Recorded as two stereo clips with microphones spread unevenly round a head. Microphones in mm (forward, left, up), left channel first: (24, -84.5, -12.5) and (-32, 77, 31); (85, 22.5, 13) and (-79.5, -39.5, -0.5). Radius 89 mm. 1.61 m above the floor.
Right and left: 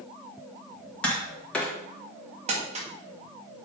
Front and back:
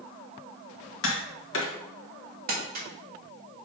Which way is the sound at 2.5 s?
155° left.